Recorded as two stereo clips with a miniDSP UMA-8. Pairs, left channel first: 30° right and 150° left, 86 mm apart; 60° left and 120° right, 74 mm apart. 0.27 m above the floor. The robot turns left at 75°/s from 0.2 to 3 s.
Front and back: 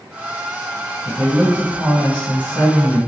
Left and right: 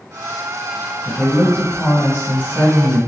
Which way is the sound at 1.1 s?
120° left.